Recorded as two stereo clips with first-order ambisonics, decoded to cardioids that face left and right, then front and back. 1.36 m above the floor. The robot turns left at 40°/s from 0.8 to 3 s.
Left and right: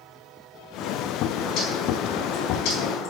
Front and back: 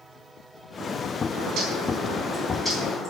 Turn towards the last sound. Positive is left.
turn(degrees=75)